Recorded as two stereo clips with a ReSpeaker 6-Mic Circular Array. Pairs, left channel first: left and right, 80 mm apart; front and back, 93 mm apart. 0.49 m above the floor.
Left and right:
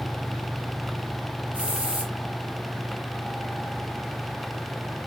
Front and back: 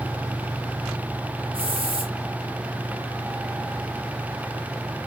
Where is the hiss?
165° right, 6 m.